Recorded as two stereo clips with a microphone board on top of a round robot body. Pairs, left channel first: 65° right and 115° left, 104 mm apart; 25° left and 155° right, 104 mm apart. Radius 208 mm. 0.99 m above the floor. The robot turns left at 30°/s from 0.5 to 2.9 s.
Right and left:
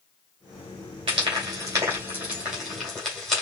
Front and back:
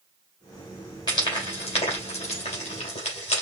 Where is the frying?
70° left, 2.5 m; by 3.4 s 15° left, 2.5 m.